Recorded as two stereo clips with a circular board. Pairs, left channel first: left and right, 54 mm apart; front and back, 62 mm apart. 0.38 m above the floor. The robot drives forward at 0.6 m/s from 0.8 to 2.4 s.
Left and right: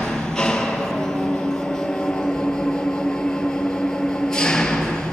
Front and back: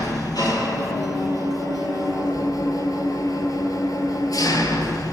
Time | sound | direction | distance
0.0 | an engine running | 5° left | 4 m